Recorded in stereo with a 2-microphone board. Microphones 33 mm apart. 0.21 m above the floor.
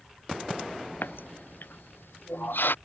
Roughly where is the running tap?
Left.